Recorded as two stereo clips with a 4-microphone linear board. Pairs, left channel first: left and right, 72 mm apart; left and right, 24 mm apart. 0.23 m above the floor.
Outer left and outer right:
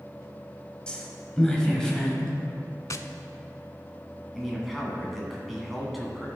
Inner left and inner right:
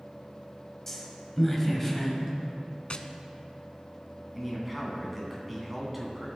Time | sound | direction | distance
0.9 | a woman speaking | 15° left (ahead or behind) | 1.4 m
2.9 | tapping | 50° left (ahead or behind) | 0.5 m
4.3 | a man speaking | centre (ahead or behind) | 2.5 m